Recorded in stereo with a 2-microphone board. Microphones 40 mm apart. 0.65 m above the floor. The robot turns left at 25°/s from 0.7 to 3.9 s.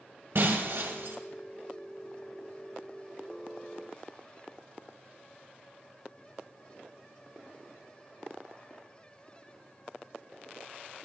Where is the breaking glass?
65° right (ahead or behind), 1.7 m; by 1.2 s 75° right (ahead or behind), 1.7 m.